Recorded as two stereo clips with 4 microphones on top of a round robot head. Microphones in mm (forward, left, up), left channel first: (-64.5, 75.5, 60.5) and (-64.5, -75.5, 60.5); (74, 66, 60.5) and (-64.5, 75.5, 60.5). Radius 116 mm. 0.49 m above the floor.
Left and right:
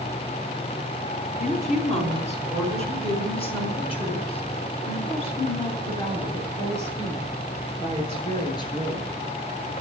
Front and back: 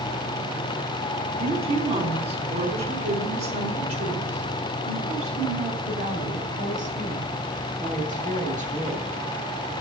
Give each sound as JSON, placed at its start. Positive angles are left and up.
{"t": 1.4, "sound": "a woman speaking", "azimuth_deg": 130, "distance_m": 5.0}